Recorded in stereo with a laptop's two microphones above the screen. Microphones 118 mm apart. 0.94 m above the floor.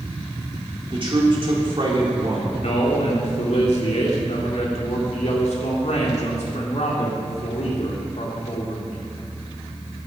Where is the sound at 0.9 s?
45° right (ahead or behind), 2 m.